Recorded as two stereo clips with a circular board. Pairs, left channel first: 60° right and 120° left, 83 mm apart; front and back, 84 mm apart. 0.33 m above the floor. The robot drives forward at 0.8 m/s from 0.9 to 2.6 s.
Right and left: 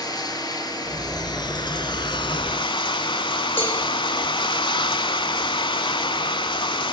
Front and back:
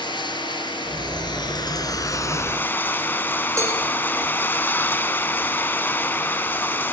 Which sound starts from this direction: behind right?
A cowbell, at 3.6 s.